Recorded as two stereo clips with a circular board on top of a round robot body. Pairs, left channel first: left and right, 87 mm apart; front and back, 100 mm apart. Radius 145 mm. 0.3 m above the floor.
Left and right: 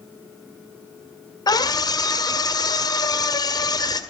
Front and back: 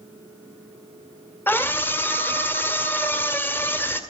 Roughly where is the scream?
Ahead left.